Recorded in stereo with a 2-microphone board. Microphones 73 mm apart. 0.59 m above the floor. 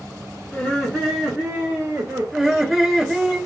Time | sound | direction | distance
0.5 | laughter | 20° left (ahead or behind) | 1.2 m
2.3 | laughter | 10° right (ahead or behind) | 1.0 m